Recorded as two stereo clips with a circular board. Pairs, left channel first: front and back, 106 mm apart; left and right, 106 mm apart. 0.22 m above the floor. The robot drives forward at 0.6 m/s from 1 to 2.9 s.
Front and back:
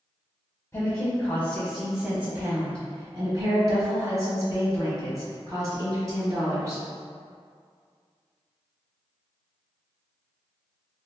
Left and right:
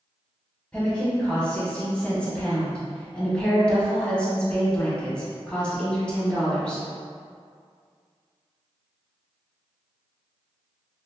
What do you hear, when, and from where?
0.7 s a woman speaking: 20° left, 1.1 m; by 6.8 s 165° left, 1.2 m